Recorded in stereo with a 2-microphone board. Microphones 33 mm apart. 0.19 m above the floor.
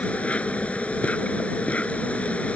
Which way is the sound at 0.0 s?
40° left (ahead or behind).